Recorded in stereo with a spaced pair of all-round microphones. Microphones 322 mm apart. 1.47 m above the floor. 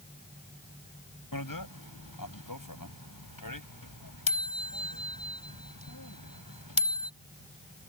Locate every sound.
1.3 s a bicycle bell: 85° left